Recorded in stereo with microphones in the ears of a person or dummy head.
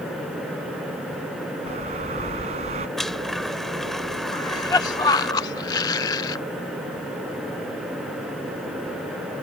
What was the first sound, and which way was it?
A bird, 35° right (ahead or behind).